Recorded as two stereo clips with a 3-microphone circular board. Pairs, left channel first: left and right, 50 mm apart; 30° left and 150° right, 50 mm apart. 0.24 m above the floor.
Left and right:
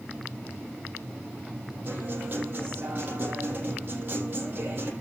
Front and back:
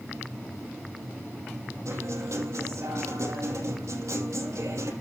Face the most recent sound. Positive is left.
turn(degrees=-140)